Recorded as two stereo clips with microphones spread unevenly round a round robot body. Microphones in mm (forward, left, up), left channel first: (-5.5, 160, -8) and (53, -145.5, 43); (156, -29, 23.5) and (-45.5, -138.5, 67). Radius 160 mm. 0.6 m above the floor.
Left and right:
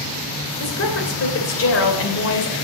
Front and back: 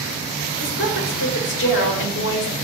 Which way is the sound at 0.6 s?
60° left.